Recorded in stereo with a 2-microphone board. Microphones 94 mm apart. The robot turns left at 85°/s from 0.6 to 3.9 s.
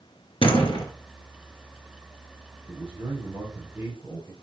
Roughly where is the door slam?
Left.